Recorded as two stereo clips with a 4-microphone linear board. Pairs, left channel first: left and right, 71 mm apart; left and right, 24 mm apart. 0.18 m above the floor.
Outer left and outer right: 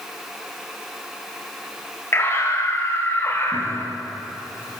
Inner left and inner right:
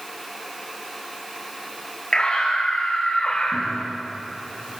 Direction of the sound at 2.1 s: 35° left (ahead or behind).